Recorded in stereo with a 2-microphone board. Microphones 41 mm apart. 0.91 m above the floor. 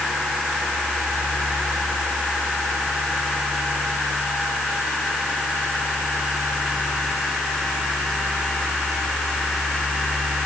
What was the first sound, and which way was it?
Only background noise.